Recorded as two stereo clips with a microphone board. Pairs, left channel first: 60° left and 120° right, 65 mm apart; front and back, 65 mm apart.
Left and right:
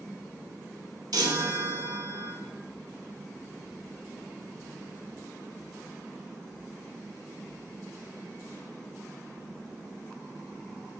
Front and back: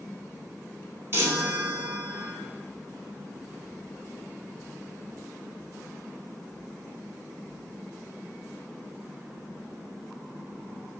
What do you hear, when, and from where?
1.1 s a chime: 130° right, 0.5 m